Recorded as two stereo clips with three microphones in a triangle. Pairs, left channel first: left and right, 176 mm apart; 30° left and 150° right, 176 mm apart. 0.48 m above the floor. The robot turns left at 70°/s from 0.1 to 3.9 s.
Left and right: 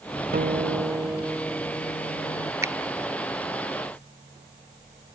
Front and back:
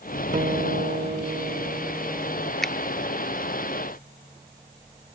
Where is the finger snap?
55° right, 0.5 m; by 2.7 s 60° right, 0.5 m.